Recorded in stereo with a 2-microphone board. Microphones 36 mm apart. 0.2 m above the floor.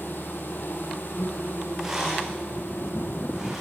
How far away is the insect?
About 4.5 m.